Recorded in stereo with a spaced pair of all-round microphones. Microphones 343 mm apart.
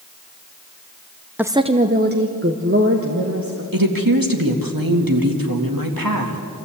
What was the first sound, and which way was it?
A woman speaking, 5° right (ahead or behind).